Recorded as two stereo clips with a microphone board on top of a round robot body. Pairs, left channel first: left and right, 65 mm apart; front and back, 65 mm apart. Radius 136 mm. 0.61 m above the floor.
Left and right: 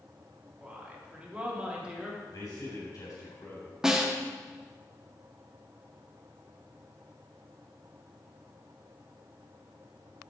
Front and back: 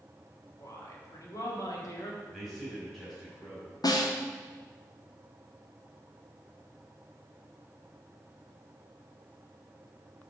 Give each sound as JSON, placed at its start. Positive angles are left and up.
{"t": 0.6, "sound": "a woman speaking", "azimuth_deg": -20, "distance_m": 2.0}
{"t": 2.3, "sound": "a man speaking", "azimuth_deg": 90, "distance_m": 3.0}
{"t": 3.8, "sound": "a snare drum", "azimuth_deg": -5, "distance_m": 1.0}